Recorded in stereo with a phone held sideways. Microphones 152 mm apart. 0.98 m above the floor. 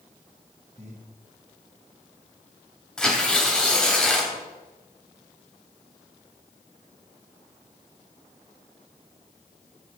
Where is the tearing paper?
5° left (ahead or behind), 2.5 m.